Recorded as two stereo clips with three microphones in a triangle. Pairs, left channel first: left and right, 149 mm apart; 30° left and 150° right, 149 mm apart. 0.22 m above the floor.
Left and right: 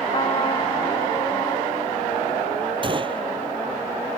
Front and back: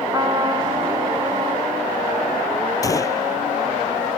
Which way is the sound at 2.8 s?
35° right.